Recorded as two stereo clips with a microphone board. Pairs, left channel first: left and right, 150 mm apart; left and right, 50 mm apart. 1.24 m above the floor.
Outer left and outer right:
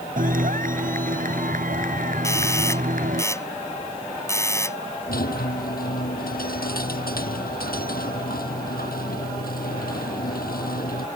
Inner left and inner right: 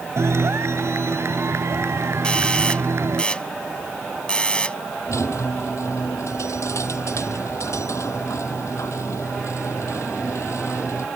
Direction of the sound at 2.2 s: 20° left (ahead or behind).